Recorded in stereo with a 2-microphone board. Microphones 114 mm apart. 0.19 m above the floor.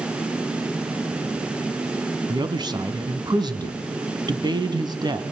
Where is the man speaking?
40° right (ahead or behind), 1.4 m.